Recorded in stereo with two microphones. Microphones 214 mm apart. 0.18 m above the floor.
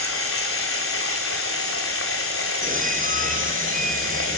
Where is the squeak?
40° right (ahead or behind), 3 m.